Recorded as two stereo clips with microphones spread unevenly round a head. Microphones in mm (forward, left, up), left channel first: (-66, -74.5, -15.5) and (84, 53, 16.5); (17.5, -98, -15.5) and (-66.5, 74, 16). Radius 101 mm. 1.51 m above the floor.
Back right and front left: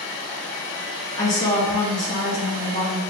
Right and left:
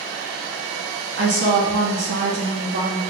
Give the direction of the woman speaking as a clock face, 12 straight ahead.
7 o'clock.